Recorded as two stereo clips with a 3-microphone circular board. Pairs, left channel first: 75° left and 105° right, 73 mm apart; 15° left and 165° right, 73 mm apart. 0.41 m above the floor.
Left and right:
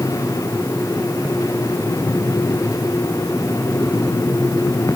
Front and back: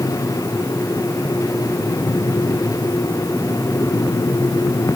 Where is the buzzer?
I don't hear a buzzer.